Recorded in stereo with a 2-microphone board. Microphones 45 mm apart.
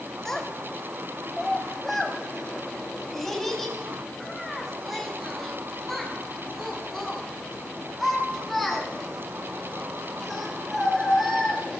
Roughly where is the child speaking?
Centre.